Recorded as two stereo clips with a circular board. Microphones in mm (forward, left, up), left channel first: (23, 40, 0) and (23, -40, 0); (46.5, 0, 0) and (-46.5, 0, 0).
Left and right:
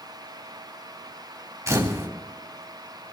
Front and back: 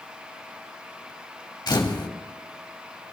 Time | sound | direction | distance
1.7 | a camera shutter | 45° right | 2.5 m